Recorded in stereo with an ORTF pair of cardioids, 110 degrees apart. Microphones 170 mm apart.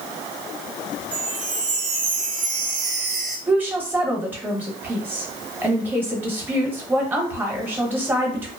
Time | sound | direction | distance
1.1 | a chime | 50° right | 0.8 m
3.5 | a woman speaking | 10° right | 1.0 m